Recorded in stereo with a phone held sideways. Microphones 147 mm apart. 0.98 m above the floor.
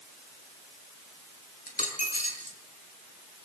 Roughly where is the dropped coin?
Left.